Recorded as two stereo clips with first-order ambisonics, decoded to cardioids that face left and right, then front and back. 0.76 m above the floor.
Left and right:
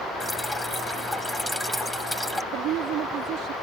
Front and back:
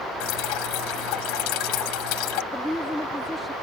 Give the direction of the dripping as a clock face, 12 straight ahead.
12 o'clock.